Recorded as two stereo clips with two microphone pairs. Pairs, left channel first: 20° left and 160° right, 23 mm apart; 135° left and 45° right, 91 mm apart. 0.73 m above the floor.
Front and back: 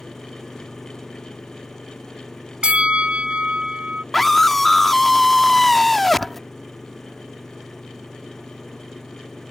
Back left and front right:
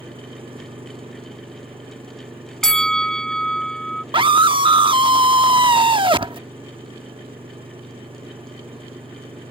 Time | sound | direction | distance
0.0 | an engine running | 50° right | ?
2.6 | a bell | 145° right | ?
4.1 | a scream | 55° right | ?